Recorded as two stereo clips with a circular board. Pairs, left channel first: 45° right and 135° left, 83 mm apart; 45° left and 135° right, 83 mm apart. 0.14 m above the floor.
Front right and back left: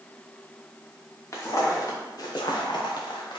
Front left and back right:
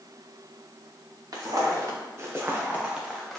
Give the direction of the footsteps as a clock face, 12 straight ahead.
3 o'clock.